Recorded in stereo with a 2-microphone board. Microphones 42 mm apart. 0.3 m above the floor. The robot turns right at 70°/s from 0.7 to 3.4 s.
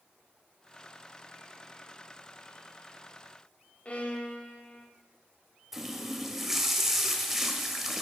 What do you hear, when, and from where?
3.9 s a violin: 35° left (ahead or behind), 0.7 m
5.7 s a running tap: 5° right (ahead or behind), 0.6 m